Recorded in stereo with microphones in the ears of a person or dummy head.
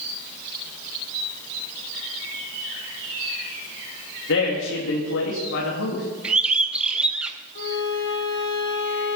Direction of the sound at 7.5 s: 60° left (ahead or behind).